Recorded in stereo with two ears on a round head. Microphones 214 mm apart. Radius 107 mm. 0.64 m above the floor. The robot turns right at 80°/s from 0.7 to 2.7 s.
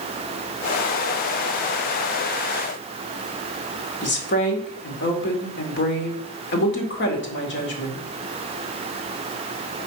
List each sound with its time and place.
4.0 s a woman speaking: 50° left (ahead or behind), 2 m